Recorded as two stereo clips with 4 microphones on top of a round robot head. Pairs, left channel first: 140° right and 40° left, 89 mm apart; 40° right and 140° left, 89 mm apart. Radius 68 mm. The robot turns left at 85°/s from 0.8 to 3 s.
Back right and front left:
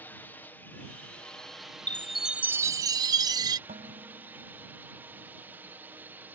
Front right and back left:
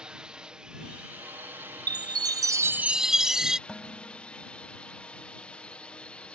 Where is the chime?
155° left; by 3.6 s 60° left.